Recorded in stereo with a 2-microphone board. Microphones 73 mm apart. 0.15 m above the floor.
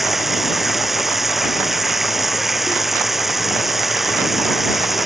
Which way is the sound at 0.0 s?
Centre (ahead or behind).